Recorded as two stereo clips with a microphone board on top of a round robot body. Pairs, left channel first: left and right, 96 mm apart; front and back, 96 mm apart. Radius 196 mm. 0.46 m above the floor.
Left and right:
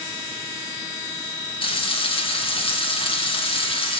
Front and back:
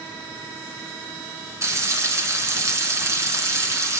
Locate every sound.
1.6 s frying: 120° left, 3 m